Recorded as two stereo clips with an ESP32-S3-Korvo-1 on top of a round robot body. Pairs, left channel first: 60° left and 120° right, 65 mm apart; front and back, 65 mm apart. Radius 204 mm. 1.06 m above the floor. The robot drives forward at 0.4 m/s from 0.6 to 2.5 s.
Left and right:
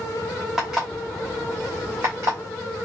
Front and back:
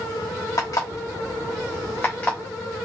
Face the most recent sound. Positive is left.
turn(degrees=-75)